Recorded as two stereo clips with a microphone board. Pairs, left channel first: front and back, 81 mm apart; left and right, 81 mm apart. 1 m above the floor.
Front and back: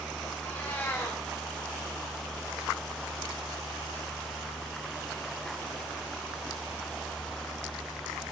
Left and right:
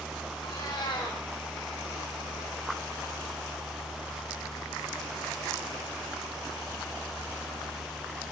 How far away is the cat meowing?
About 4.5 m.